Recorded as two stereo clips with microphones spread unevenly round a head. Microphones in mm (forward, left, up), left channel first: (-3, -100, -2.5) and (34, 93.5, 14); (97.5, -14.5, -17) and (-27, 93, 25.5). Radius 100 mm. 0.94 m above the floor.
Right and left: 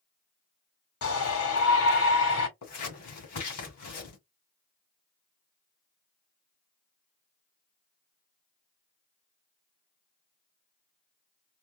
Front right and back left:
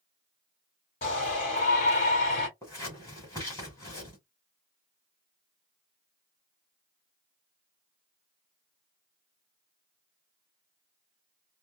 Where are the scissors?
115° right, 2 m.